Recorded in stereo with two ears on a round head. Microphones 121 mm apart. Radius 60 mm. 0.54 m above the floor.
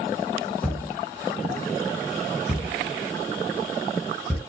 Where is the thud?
Centre (ahead or behind), 2.5 m.